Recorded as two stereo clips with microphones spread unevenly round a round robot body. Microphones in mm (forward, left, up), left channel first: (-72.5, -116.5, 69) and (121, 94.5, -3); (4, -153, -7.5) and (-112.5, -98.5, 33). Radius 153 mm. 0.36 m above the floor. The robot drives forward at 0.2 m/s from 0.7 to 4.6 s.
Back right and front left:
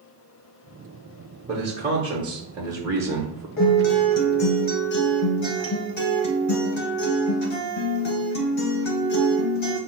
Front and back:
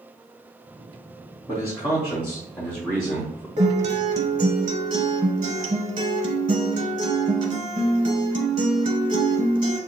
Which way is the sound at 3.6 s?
175° right.